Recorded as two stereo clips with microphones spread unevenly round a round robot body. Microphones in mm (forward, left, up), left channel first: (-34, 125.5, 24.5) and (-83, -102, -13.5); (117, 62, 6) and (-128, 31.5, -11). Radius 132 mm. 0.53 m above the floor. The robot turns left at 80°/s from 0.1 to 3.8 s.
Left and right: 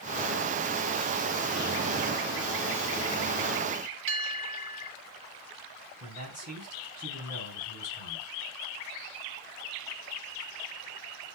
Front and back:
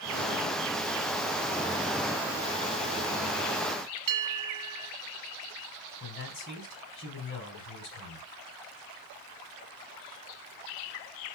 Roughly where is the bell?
Behind right.